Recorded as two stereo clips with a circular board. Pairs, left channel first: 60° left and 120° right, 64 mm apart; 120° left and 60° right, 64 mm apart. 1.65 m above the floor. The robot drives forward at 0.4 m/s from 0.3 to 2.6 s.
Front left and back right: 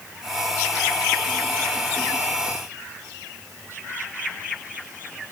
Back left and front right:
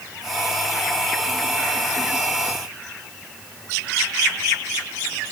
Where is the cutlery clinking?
No cutlery clinking in this recording.